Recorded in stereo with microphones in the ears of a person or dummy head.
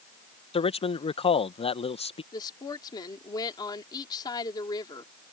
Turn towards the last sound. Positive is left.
turn(degrees=25)  # may be behind; listen again after turning